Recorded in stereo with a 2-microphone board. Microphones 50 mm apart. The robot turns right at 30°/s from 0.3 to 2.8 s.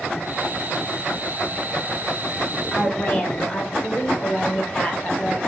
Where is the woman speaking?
20° left (ahead or behind), 2 m; by 5.4 s 25° left (ahead or behind), 2 m.